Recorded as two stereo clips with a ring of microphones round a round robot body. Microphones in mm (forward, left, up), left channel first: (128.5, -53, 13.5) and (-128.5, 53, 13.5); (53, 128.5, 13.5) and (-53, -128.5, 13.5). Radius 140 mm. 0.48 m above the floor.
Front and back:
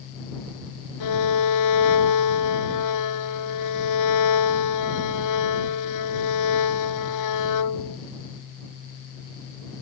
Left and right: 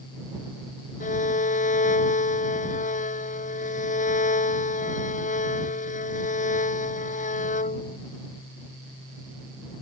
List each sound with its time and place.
1.0 s a violin: 5° left